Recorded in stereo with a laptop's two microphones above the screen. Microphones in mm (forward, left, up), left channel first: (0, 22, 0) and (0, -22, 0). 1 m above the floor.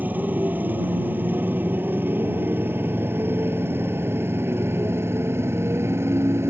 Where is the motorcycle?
40° right (ahead or behind); by 6.5 s 75° right (ahead or behind).